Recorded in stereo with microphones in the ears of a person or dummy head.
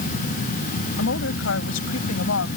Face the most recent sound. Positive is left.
turn(degrees=85)